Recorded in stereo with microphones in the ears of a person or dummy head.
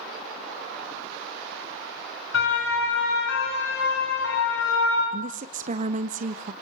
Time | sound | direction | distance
2.3 | a siren | 75° left (ahead or behind) | 6.5 m
5.1 | a woman speaking | 40° right (ahead or behind) | 1.4 m